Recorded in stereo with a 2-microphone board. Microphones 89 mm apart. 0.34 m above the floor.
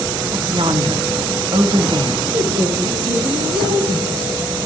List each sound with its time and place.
0.3 s a woman speaking: 60° right (ahead or behind), 3 m
2.3 s a woman speaking: 85° right, 7 m